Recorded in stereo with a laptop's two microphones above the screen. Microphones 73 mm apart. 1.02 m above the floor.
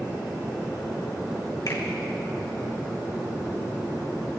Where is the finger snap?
55° left (ahead or behind), 1.8 m.